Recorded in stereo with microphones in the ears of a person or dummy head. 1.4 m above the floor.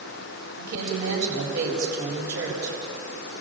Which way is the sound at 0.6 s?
60° right (ahead or behind).